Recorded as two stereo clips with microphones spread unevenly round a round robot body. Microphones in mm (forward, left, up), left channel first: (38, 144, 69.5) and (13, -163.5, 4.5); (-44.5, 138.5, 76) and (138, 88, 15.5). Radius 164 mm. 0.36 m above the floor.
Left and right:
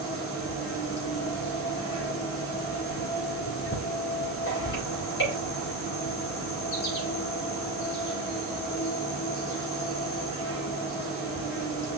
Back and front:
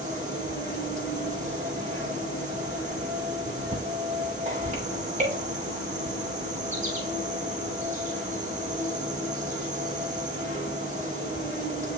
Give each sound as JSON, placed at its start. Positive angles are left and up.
{"t": 0.0, "sound": "an insect", "azimuth_deg": 35, "distance_m": 6.0}